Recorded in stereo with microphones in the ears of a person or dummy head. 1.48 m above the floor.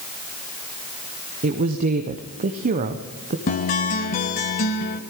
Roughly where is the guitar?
Left.